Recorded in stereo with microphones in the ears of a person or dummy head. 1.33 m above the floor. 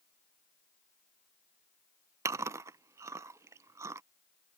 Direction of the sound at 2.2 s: 20° right (ahead or behind).